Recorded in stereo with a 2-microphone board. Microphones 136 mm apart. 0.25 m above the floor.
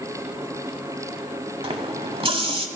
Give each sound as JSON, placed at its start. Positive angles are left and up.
{"t": 1.6, "sound": "a running tap", "side_deg": -40, "distance_m": 0.8}